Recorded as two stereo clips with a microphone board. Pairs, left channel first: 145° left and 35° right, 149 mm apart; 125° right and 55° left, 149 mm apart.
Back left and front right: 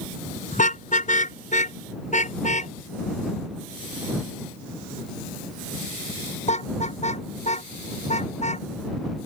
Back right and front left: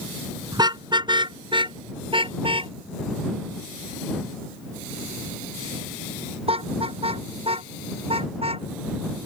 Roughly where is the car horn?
Behind left.